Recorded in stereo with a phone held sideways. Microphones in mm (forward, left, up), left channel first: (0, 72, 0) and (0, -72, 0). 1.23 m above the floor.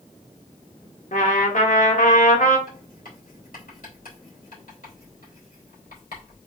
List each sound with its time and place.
1.1 s a trumpet: 65° left (ahead or behind), 1.3 m
2.7 s writing: 80° left, 3 m